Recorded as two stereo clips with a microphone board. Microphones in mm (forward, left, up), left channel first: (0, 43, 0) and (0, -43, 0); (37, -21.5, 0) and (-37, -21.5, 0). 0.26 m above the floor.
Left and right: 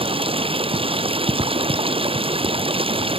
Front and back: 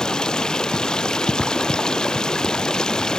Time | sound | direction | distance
0.0 | running water | 80° right | ?